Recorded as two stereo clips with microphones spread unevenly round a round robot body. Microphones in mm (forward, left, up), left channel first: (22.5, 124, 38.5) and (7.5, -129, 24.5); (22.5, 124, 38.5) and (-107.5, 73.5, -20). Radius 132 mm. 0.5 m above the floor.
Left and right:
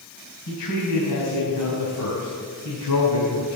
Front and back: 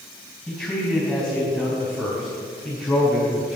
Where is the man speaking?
110° left, 3 m; by 3.6 s 120° left, 4.5 m.